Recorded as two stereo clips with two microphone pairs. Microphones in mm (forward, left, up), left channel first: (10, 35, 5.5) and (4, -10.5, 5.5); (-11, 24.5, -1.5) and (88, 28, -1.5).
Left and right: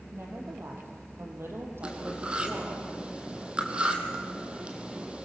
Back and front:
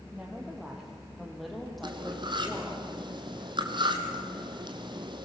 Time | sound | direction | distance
0.1 | a woman speaking | 80° right | 4.5 m
1.8 | cutlery clinking | 35° right | 2 m